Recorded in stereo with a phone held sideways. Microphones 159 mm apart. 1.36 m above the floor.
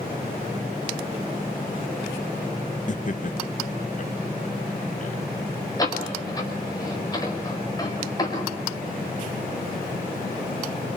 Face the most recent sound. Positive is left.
turn(degrees=25)  # may be behind; listen again after turning